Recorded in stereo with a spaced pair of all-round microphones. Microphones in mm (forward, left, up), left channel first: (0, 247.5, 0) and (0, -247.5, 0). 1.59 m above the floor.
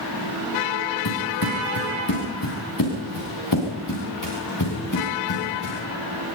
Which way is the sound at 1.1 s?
45° left (ahead or behind).